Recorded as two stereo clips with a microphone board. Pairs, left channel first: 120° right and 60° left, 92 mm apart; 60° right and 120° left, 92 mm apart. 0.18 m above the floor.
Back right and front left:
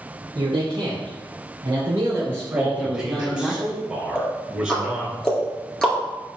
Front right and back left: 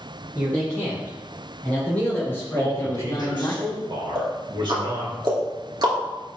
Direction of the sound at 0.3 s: 20° left.